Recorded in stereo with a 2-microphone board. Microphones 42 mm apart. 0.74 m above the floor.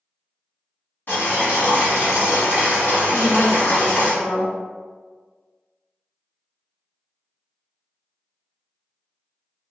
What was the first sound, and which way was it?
Boiling, 60° left (ahead or behind).